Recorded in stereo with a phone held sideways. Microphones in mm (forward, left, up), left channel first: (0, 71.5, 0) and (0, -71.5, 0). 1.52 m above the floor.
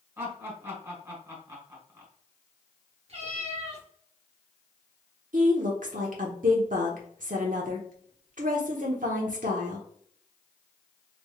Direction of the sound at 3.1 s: 45° right (ahead or behind).